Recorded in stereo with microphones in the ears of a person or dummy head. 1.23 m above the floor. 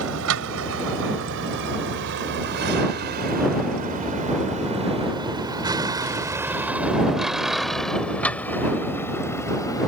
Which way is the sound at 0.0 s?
75° right (ahead or behind).